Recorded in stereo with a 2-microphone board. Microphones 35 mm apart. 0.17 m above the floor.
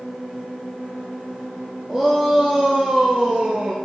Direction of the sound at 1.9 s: 15° right (ahead or behind).